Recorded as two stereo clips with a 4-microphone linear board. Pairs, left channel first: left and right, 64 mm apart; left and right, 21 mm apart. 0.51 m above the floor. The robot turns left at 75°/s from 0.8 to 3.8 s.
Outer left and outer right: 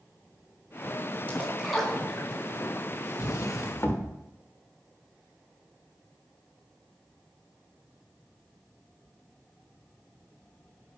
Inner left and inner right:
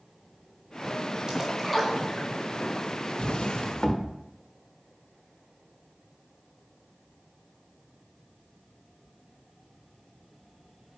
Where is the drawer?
95° left, 0.9 m; by 4.1 s 50° left, 0.9 m.